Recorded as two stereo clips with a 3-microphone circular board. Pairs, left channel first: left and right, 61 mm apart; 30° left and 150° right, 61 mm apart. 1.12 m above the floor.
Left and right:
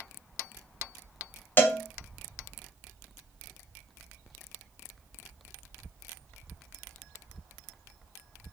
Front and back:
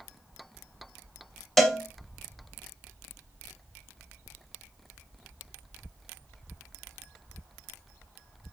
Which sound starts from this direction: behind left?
A cowbell, at 1.6 s.